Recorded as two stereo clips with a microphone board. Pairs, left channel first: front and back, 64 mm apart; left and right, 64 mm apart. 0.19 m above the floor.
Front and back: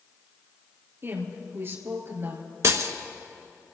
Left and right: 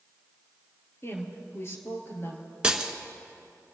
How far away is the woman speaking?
About 3 m.